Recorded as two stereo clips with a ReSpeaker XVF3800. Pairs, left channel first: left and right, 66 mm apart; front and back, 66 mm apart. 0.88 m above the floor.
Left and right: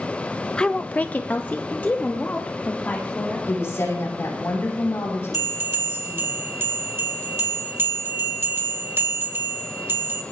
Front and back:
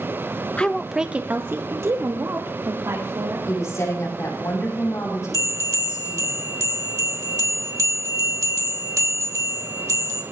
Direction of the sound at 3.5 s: 40° left.